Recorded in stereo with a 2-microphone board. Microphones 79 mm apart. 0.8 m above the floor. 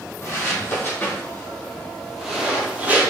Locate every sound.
0.2 s footsteps: 35° left (ahead or behind), 1.7 m; by 3.1 s 20° right (ahead or behind), 1.2 m